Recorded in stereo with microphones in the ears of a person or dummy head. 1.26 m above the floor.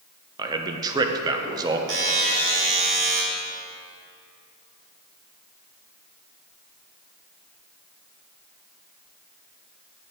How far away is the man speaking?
About 0.7 m.